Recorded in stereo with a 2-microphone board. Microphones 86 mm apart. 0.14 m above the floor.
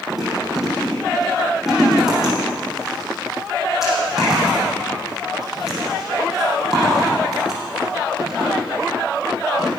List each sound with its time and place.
0.1 s chewing: centre (ahead or behind), 6.5 m